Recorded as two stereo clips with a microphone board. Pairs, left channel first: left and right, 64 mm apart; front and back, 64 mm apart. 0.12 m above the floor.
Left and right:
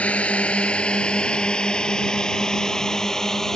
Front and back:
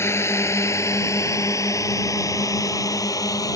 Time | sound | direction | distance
0.0 | a drone | 30° left | ?